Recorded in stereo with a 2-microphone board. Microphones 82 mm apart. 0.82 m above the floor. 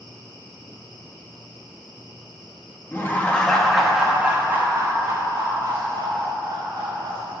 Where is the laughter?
30° left (ahead or behind), 0.9 m; by 7.3 s 60° right (ahead or behind), 2 m.